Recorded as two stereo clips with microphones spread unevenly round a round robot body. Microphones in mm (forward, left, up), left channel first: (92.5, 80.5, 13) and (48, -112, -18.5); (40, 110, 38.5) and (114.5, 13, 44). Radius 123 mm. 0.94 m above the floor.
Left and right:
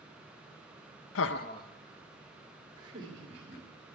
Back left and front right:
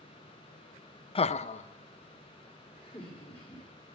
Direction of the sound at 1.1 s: 90° left.